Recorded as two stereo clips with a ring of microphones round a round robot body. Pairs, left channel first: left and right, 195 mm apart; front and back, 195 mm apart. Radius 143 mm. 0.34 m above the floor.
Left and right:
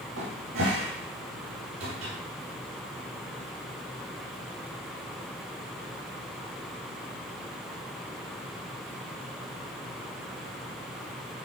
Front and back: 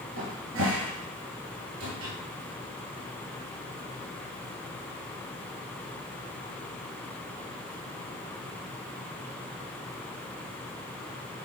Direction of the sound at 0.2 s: 145° right.